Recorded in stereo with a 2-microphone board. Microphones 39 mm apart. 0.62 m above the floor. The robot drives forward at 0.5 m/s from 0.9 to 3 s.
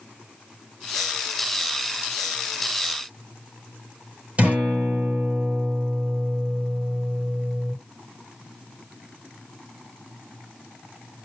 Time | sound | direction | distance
4.4 | a guitar | 35° right (ahead or behind) | 3 m